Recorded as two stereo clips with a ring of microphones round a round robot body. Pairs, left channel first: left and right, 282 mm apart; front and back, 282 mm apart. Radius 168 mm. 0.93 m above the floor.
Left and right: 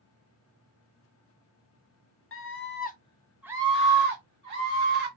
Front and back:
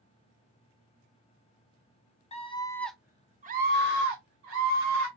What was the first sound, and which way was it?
A scream, 65° left.